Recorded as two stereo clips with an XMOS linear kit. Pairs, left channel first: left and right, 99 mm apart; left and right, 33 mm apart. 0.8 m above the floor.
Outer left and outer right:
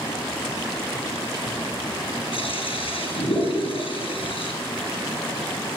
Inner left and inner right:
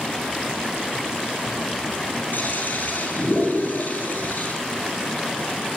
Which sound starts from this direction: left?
A toilet flushing, at 2.3 s.